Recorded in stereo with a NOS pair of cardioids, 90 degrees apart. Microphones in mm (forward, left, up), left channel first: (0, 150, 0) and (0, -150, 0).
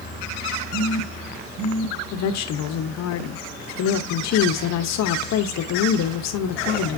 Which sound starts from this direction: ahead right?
A phone buzzing, at 0.7 s.